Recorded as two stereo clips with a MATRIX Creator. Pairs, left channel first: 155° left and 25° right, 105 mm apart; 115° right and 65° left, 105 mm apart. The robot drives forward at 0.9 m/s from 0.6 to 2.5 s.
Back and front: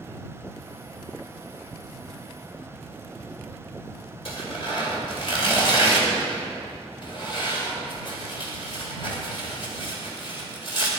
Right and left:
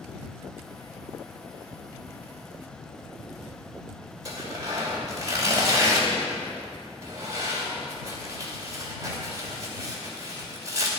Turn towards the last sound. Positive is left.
turn(degrees=125)